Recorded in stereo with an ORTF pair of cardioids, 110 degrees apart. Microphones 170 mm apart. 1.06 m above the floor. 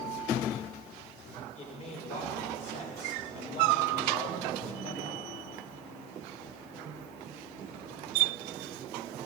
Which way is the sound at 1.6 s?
45° left.